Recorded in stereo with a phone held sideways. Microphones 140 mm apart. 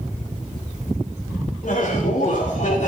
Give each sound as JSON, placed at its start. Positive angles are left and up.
{"t": 1.6, "sound": "laughter", "side_deg": 65, "distance_m": 5.5}